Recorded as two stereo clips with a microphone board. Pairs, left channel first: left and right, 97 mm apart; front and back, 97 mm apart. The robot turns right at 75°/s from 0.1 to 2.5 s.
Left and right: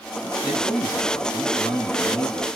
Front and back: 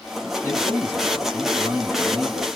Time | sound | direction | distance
0.4 | a man speaking | 30° right | 1.9 m